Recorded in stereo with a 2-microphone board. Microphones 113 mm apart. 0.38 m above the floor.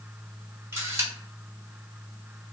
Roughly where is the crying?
No crying in this recording.